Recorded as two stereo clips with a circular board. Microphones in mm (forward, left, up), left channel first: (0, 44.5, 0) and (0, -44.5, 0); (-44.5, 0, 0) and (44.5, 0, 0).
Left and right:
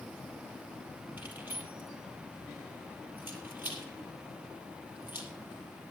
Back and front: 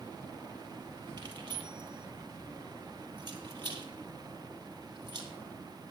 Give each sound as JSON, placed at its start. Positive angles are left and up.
{"t": 1.2, "sound": "keys jangling", "azimuth_deg": -25, "distance_m": 2.5}